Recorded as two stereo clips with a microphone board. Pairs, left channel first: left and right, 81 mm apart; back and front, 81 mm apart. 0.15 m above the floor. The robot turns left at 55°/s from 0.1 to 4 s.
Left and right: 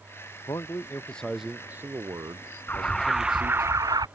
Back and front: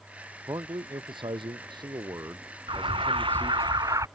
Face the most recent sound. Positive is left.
turn(degrees=-50)